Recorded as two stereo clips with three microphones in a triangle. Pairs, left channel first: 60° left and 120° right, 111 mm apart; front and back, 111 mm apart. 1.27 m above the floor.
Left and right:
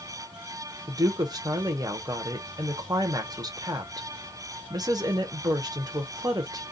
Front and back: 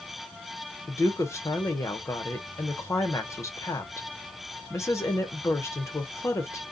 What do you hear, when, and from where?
0.9 s a woman speaking: 65° right, 0.8 m